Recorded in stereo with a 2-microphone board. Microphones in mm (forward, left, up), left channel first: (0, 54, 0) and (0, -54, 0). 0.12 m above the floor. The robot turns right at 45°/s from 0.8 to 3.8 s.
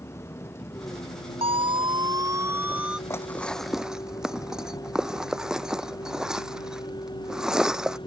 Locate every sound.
0.0 s a vehicle: 25° left (ahead or behind); by 8.1 s 45° left (ahead or behind)
1.4 s a siren: 60° right (ahead or behind); by 3.0 s 5° right (ahead or behind)
3.1 s dishes clattering: 25° left (ahead or behind); by 8.0 s 5° right (ahead or behind)